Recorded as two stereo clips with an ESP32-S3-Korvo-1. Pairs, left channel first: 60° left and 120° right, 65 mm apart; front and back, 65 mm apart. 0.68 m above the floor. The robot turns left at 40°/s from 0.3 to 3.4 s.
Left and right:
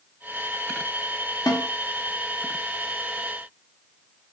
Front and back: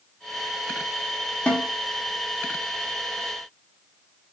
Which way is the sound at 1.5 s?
70° left.